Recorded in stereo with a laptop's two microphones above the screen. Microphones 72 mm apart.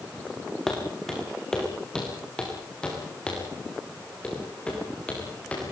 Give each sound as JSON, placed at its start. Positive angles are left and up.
{"t": 0.7, "sound": "footsteps", "side_deg": 5, "distance_m": 4.0}